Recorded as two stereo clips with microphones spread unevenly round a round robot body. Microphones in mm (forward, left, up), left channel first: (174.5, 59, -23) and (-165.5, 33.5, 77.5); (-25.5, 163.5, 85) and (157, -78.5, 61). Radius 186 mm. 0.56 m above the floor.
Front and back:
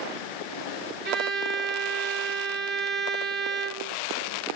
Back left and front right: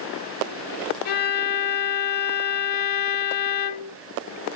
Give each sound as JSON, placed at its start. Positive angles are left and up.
{"t": 1.1, "sound": "a violin", "azimuth_deg": 120, "distance_m": 1.2}